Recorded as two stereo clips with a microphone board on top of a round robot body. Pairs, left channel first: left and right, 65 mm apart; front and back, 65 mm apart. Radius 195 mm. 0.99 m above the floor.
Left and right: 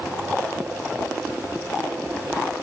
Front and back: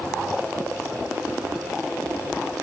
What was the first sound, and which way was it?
Only background noise.